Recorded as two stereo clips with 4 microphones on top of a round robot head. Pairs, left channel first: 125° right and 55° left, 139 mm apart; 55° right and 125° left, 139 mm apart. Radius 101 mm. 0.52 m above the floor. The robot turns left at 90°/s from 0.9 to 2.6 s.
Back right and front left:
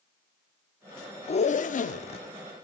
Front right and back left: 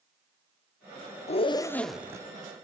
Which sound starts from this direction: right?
A zipper, at 1.3 s.